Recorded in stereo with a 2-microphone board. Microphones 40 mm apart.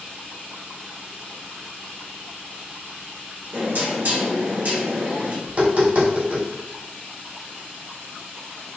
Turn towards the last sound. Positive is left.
turn(degrees=-50)  # may be behind; listen again after turning